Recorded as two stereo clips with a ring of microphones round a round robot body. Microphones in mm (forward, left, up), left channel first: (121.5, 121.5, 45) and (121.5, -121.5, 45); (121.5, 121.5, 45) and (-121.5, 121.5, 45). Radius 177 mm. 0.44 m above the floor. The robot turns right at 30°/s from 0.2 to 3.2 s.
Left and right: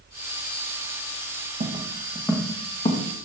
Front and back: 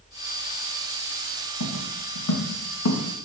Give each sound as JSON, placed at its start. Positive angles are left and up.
{"t": 1.6, "sound": "footsteps", "azimuth_deg": -30, "distance_m": 1.8}